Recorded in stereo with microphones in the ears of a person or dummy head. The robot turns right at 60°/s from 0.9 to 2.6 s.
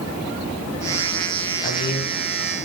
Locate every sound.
1.6 s a man speaking: 40° left (ahead or behind), 8.5 m; by 2.6 s 80° left, 8.5 m